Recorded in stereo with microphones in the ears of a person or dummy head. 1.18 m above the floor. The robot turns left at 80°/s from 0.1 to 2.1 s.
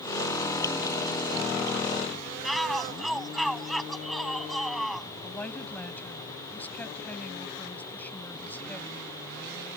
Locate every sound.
2.4 s a shout: 5° right (ahead or behind)
5.2 s a woman speaking: 10° left (ahead or behind)